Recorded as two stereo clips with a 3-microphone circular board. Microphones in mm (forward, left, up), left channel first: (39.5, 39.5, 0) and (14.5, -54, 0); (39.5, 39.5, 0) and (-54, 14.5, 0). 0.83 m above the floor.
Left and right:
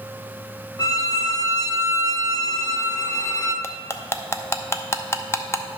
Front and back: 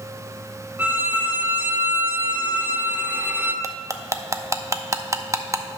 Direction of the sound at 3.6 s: 135° left.